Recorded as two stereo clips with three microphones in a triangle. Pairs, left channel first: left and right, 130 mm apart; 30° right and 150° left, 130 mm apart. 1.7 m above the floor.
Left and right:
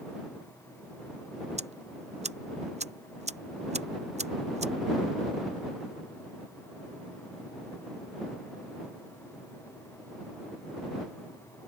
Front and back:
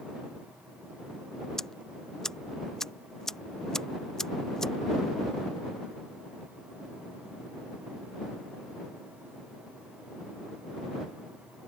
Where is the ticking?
115° right.